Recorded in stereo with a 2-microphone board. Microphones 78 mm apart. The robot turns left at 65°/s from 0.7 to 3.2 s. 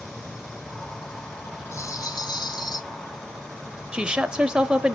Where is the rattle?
140° left, 0.9 m; by 2.8 s 65° left, 0.9 m.